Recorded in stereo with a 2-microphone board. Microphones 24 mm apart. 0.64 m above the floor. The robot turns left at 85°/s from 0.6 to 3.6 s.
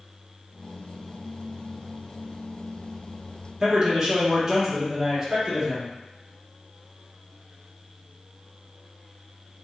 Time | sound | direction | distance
3.6 | a man speaking | 20° right (ahead or behind) | 1.3 m